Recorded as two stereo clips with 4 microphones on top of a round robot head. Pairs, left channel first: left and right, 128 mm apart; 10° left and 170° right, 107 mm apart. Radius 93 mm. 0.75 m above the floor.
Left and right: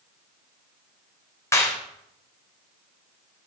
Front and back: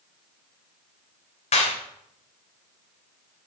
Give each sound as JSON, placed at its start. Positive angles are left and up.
{"t": 1.5, "sound": "a clap", "azimuth_deg": 20, "distance_m": 3.0}